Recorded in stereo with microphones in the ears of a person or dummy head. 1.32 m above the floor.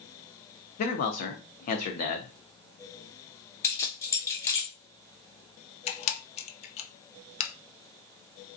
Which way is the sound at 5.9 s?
30° left (ahead or behind).